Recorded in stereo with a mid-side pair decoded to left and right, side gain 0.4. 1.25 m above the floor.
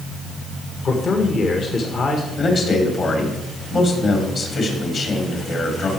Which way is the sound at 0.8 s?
55° left.